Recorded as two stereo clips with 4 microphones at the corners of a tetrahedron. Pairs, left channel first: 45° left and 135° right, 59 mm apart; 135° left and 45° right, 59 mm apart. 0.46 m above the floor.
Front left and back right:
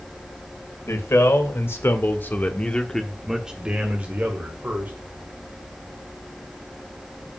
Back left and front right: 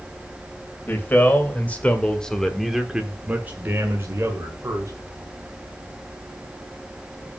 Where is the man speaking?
80° left, 2.5 m; by 4.9 s 85° right, 2 m.